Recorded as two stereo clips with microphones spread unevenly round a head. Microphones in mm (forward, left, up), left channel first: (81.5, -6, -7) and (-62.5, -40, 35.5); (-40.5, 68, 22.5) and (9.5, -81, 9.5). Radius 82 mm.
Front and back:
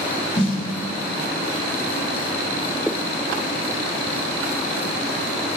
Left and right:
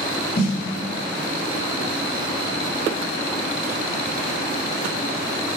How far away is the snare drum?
About 0.7 m.